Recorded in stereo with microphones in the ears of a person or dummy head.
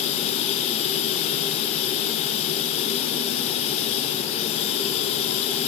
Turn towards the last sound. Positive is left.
turn(degrees=35)  # may be behind; listen again after turning